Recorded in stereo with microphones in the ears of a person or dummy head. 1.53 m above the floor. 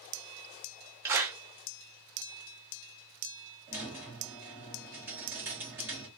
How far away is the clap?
About 0.7 m.